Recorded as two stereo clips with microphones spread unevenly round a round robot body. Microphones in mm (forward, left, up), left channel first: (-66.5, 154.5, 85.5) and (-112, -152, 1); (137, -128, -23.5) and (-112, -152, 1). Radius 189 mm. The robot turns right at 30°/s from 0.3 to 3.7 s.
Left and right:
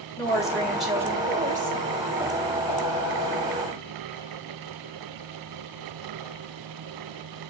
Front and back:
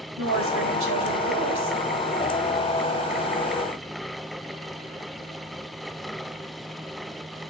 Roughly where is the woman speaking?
Behind.